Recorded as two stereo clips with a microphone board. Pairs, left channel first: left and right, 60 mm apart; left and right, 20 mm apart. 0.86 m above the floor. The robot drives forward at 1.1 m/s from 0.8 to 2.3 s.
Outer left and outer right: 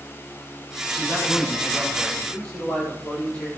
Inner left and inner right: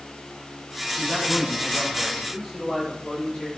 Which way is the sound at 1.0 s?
35° left (ahead or behind).